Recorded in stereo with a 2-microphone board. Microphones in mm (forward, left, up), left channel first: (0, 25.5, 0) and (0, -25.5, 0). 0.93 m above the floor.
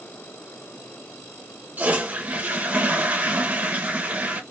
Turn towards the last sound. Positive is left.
turn(degrees=-30)  # may be behind; listen again after turning